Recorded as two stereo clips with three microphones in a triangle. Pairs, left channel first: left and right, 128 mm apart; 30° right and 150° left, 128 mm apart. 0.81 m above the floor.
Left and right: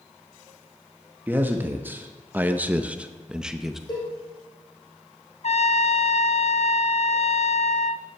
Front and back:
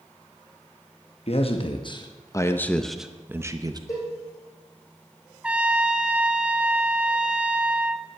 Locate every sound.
1.3 s a man speaking: 15° right, 1.1 m; by 3.8 s 175° right, 0.9 m
3.9 s a cowbell: 35° left, 5.5 m
5.4 s a trumpet: 70° left, 0.5 m